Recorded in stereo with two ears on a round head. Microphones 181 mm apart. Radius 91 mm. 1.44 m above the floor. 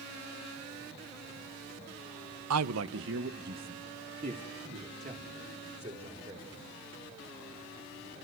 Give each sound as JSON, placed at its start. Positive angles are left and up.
{"t": 2.5, "sound": "a man speaking", "side_deg": -90, "distance_m": 0.9}